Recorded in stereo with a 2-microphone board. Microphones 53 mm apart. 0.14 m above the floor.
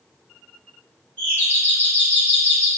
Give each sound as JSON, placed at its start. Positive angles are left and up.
{"t": 1.2, "sound": "a doorbell", "side_deg": 25, "distance_m": 2.0}